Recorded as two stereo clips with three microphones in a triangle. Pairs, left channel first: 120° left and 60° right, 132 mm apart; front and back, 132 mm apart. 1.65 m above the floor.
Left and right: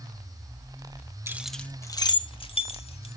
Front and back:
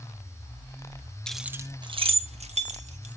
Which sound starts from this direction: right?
Keys jangling, at 1.3 s.